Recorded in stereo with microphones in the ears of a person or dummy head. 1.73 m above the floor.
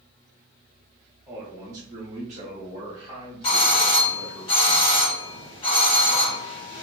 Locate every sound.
1.3 s a man speaking: 15° right (ahead or behind), 0.7 m
3.4 s a doorbell: 30° left (ahead or behind), 0.6 m